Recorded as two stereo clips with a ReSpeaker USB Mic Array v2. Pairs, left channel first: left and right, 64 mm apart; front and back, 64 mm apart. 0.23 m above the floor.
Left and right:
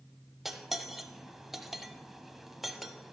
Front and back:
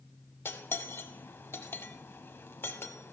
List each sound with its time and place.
0.5 s cutlery clinking: 5° right, 0.6 m